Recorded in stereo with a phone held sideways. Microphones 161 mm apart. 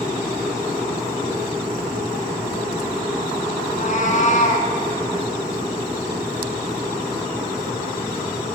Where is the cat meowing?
50° left (ahead or behind), 2.5 m.